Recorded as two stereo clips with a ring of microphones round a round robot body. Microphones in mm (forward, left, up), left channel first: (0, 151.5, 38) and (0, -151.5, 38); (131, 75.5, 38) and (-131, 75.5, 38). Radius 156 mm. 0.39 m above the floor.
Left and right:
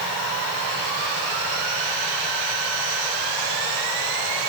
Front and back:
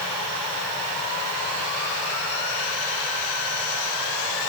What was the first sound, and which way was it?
Only background noise.